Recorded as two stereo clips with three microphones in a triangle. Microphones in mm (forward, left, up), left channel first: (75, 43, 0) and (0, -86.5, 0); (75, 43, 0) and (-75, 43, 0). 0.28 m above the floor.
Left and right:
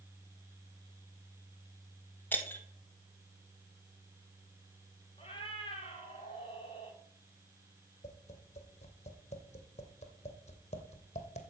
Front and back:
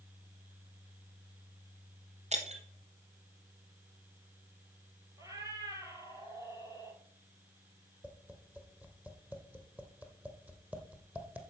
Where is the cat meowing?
110° left, 2 m.